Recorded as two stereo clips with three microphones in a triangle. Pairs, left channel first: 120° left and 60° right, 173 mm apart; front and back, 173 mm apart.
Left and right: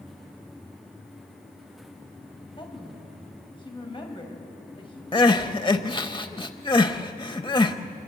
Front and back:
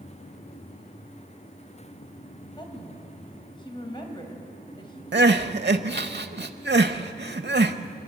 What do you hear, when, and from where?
2.6 s a woman speaking: 60° left, 3.5 m
5.1 s crying: 175° right, 0.8 m